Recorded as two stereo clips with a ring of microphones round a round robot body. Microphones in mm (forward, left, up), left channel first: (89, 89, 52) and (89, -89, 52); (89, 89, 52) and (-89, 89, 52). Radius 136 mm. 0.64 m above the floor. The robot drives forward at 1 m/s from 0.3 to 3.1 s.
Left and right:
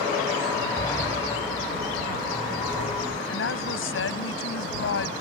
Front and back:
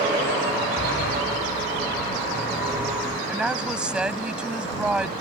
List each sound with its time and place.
0.8 s a sliding door: 20° left; by 3.2 s 45° left
3.3 s a woman speaking: 95° left